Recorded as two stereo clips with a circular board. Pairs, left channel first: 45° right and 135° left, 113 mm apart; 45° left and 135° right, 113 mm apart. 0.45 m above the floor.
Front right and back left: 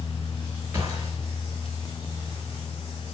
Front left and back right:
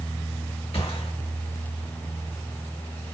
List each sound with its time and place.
0.7 s a gunshot: 70° left, 3.5 m